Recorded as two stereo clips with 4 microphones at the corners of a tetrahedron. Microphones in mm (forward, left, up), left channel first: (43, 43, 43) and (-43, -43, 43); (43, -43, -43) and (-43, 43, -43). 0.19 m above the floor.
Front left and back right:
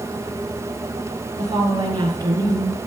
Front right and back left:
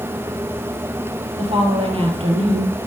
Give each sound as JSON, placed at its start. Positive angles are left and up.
{"t": 1.4, "sound": "a woman speaking", "azimuth_deg": 170, "distance_m": 3.5}